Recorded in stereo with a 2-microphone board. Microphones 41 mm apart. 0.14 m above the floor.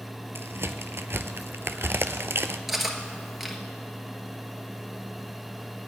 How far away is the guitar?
I don't hear a guitar.